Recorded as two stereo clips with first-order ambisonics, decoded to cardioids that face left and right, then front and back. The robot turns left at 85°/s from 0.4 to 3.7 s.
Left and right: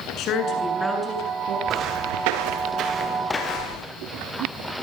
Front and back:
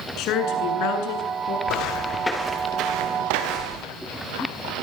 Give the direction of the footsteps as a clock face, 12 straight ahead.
1 o'clock.